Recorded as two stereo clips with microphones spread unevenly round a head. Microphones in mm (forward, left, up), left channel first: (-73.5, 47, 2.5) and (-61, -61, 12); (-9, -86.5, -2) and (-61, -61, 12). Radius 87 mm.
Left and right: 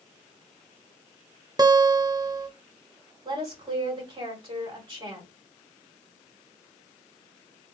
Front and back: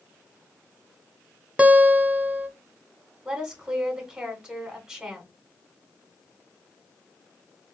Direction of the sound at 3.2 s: 130° right.